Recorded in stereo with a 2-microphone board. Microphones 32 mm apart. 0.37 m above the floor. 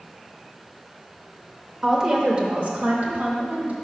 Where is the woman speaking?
15° right (ahead or behind), 0.8 m; by 3.7 s 60° right (ahead or behind), 1.6 m.